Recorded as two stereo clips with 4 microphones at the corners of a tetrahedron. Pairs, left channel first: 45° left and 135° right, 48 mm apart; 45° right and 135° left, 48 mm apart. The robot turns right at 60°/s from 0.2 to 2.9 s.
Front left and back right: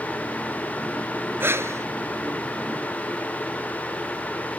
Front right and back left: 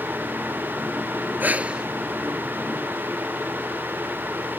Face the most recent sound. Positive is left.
turn(degrees=-85)